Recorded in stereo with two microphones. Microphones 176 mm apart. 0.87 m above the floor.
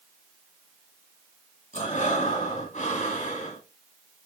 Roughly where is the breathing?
Left.